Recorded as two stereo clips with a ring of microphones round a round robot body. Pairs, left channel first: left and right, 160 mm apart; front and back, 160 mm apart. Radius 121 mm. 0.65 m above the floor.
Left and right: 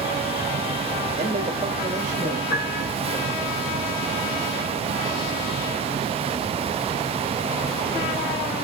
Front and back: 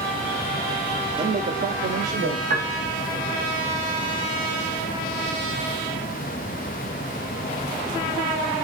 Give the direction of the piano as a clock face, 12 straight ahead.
7 o'clock.